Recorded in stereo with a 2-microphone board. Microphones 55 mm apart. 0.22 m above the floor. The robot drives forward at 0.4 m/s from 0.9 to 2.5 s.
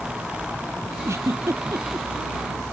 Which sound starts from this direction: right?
A giggle, at 1.1 s.